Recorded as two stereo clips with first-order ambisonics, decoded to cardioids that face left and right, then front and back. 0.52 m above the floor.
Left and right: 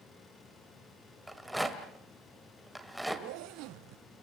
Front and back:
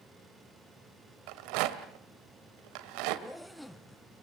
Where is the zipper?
90° right, 0.7 m.